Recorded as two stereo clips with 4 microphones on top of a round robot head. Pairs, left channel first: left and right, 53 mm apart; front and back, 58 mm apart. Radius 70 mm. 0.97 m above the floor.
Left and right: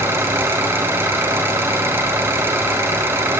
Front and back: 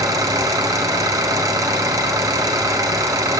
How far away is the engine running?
About 3 m.